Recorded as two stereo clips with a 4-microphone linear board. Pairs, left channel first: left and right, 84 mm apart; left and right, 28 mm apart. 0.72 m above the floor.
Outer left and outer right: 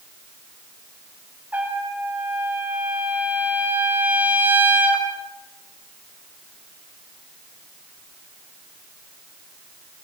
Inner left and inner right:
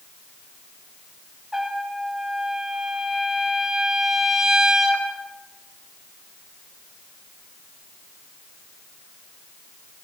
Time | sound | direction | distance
1.5 | a trumpet | 20° right (ahead or behind) | 3.5 m